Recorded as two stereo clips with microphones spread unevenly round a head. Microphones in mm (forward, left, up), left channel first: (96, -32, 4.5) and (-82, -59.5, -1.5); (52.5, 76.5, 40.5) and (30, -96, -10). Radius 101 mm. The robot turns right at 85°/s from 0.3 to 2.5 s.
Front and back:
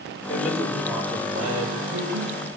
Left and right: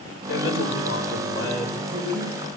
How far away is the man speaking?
About 5.5 m.